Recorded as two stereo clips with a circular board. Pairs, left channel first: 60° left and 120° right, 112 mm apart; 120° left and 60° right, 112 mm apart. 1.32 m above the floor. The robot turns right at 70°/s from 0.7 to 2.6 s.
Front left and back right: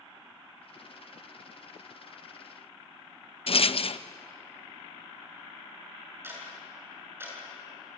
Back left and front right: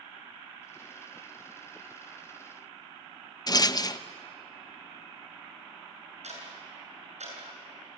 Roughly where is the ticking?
Ahead right.